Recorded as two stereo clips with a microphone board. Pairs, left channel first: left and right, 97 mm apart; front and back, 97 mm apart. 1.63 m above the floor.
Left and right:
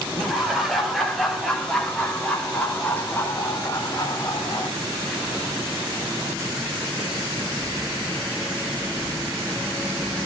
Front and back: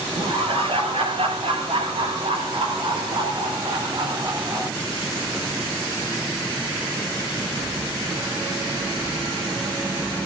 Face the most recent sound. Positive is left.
turn(degrees=130)